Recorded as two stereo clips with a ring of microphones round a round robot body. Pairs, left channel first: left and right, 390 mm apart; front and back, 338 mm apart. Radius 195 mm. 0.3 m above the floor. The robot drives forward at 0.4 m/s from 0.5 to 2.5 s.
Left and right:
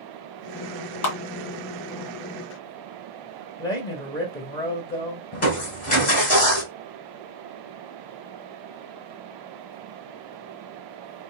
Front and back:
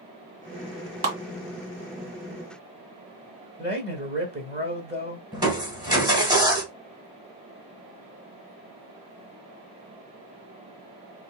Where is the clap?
135° left, 1.7 m.